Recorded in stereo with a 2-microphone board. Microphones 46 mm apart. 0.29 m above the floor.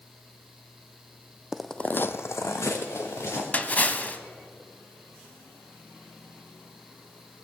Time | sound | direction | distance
1.5 | footsteps | 5° right (ahead or behind) | 0.6 m
3.5 | a splash | 30° left (ahead or behind) | 0.7 m